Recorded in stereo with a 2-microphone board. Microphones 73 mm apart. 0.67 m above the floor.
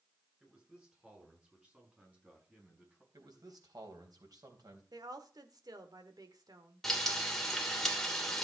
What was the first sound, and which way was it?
A man speaking, 15° right (ahead or behind).